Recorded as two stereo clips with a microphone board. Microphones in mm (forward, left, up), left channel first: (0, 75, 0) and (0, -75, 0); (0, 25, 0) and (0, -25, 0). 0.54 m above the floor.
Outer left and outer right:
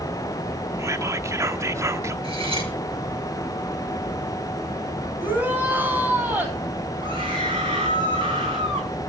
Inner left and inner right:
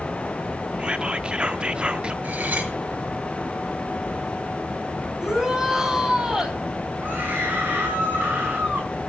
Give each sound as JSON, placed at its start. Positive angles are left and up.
{"t": 0.8, "sound": "whispering", "side_deg": -20, "distance_m": 0.8}
{"t": 2.2, "sound": "cutlery clinking", "side_deg": -35, "distance_m": 5.0}
{"t": 5.2, "sound": "a shout", "side_deg": -10, "distance_m": 4.0}
{"t": 7.0, "sound": "a scream", "side_deg": -35, "distance_m": 8.5}